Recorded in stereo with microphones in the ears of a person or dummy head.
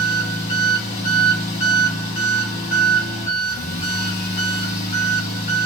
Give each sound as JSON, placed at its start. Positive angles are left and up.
{"t": 0.0, "sound": "an engine running", "side_deg": 40, "distance_m": 1.8}